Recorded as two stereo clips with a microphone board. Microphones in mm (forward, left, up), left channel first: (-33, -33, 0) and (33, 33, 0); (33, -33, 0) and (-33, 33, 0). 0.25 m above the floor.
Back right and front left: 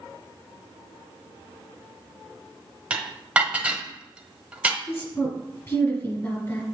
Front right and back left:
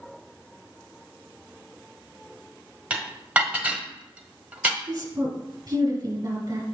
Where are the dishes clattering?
95° left, 0.9 m.